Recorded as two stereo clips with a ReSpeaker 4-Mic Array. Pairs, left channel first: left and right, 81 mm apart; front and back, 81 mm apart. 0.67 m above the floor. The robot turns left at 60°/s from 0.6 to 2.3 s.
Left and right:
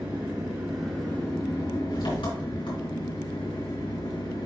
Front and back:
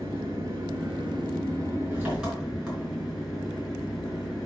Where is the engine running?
165° right, 3.5 m; by 4.5 s 95° left, 3.5 m.